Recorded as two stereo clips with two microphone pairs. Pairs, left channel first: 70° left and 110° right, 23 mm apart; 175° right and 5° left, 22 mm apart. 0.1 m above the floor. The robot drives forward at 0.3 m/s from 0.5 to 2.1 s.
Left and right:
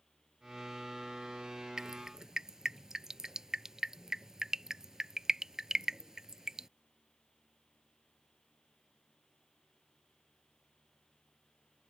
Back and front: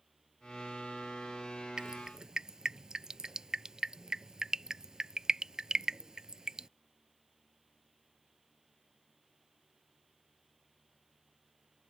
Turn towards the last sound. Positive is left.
turn(degrees=-45)